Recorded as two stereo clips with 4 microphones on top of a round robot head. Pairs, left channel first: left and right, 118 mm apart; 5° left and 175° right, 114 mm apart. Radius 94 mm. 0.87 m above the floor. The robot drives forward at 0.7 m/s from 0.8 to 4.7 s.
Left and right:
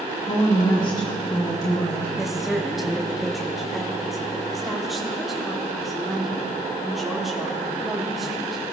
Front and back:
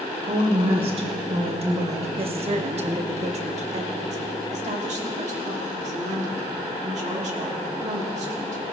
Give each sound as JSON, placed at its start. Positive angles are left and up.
{"t": 0.2, "sound": "a woman speaking", "azimuth_deg": 150, "distance_m": 2.5}
{"t": 2.2, "sound": "a woman speaking", "azimuth_deg": -175, "distance_m": 1.2}